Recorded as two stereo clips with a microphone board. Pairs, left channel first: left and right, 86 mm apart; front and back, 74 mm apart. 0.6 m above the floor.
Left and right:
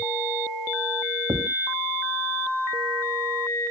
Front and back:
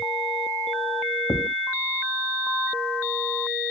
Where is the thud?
50° right.